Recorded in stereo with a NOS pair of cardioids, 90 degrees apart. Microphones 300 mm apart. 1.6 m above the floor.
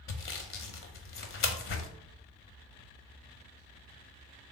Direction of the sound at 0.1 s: 45° left.